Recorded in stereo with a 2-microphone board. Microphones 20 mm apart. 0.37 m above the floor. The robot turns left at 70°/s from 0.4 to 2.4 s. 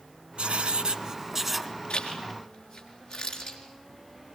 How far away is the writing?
About 0.8 m.